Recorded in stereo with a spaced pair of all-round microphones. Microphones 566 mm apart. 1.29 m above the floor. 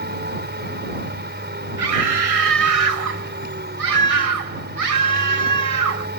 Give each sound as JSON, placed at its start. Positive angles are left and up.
{"t": 0.0, "sound": "a machine running", "side_deg": -20}
{"t": 1.8, "sound": "a scream", "side_deg": -75}